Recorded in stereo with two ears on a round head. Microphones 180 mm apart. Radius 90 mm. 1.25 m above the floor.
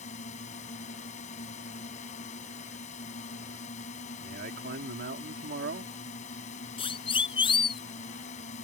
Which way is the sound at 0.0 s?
35° left (ahead or behind).